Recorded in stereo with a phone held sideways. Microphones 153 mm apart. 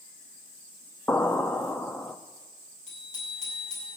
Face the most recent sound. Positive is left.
turn(degrees=50)  # may be behind; listen again after turning